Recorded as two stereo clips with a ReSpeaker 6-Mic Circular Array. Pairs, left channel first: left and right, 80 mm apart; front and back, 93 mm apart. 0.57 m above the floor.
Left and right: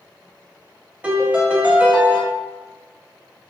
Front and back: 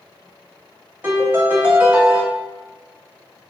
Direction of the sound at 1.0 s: 135° right.